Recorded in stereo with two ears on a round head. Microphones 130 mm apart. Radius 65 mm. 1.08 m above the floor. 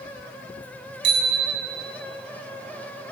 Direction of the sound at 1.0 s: 80° right.